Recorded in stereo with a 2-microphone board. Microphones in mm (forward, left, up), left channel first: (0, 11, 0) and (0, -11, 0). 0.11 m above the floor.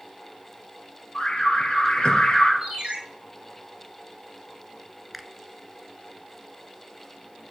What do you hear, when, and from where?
1.1 s an alarm: 55° left (ahead or behind), 3.5 m
2.6 s a ringtone: 55° right (ahead or behind), 3 m
5.1 s a finger snap: 5° right (ahead or behind), 1.1 m